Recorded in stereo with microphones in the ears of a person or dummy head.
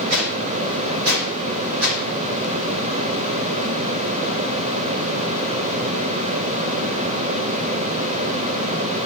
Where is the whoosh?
65° right (ahead or behind), 3 m.